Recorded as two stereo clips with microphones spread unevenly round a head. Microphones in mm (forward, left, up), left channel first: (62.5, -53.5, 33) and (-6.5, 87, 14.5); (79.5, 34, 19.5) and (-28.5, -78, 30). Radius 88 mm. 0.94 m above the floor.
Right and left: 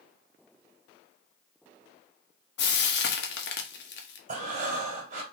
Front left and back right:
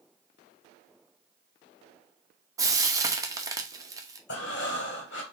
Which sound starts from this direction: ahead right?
Frying, at 2.6 s.